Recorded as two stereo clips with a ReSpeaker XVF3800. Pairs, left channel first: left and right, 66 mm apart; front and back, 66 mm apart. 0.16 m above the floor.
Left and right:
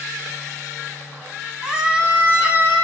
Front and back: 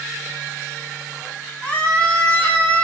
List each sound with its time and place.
1.6 s a scream: 35° right, 1.1 m; by 2.8 s 60° right, 1.4 m